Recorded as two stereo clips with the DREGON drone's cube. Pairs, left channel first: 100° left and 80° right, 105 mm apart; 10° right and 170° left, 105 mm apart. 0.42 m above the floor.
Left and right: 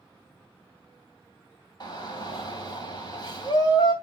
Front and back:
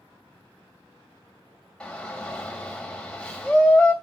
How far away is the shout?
About 3 m.